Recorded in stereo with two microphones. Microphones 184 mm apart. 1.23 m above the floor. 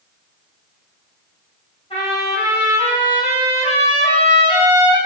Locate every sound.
1.9 s a trumpet: 35° left (ahead or behind), 5 m